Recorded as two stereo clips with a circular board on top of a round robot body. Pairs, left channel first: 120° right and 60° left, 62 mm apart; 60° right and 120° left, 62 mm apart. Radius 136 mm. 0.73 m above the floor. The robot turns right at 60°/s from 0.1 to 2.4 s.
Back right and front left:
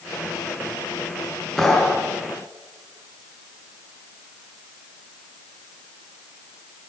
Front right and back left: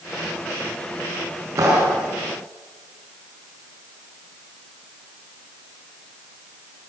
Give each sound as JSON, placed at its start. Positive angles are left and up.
{"t": 1.6, "sound": "a clap", "azimuth_deg": 155, "distance_m": 8.0}